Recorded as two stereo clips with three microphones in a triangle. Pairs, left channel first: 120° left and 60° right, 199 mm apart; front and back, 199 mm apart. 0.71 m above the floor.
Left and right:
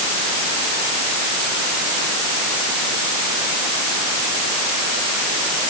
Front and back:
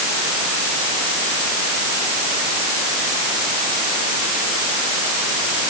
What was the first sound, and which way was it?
Only background noise.